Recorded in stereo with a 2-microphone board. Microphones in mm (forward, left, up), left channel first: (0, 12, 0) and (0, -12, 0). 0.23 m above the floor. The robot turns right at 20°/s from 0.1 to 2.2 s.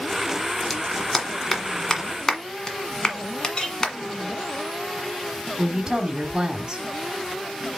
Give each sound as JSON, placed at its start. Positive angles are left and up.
{"t": 0.7, "sound": "a clap", "side_deg": 5, "distance_m": 1.4}
{"t": 3.5, "sound": "a clink", "side_deg": 35, "distance_m": 1.5}
{"t": 5.6, "sound": "a woman speaking", "side_deg": -25, "distance_m": 1.1}